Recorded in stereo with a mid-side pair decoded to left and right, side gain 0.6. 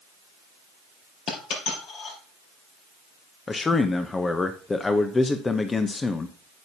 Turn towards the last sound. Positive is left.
turn(degrees=20)